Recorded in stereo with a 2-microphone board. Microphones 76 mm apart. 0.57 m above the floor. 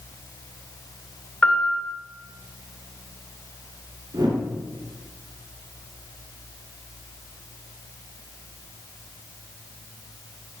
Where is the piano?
20° left (ahead or behind), 1.1 m.